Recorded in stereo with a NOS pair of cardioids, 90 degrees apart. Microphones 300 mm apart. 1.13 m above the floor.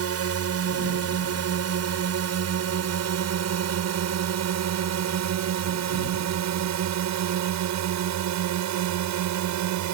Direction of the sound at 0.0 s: 55° right.